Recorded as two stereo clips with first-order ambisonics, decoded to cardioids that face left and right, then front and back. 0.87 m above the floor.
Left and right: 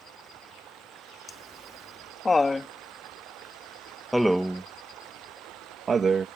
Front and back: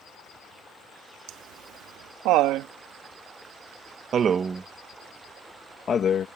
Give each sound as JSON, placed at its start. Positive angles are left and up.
{"t": 1.3, "sound": "laughter", "azimuth_deg": 165}